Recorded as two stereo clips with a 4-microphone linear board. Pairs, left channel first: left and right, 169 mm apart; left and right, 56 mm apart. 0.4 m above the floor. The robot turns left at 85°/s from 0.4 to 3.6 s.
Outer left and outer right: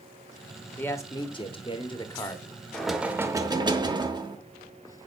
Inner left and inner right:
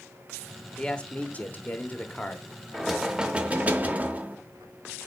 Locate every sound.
0.8 s a man speaking: 160° left, 0.9 m; by 2.4 s 20° left, 0.9 m
2.7 s knocking: 5° left (ahead or behind), 0.7 m; by 4.4 s 25° right (ahead or behind), 0.7 m